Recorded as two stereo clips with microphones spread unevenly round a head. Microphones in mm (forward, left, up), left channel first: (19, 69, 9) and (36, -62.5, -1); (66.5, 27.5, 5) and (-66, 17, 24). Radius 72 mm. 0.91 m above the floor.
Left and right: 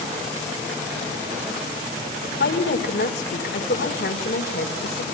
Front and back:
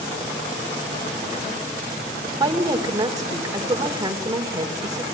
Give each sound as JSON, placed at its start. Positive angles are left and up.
{"t": 2.4, "sound": "a woman speaking", "azimuth_deg": 120, "distance_m": 3.5}